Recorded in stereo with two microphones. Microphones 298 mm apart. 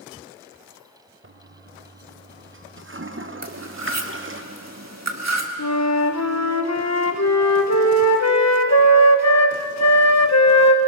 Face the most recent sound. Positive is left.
turn(degrees=60)  # may be behind; listen again after turning